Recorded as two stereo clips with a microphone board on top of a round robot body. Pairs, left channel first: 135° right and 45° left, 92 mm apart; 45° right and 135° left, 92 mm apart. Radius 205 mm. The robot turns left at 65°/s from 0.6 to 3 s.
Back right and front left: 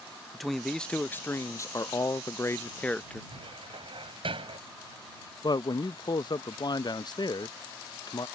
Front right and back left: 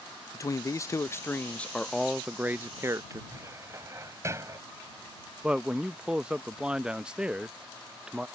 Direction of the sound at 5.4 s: 150° right.